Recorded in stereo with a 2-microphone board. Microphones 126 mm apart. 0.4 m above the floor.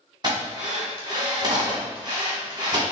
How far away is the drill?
About 1.9 m.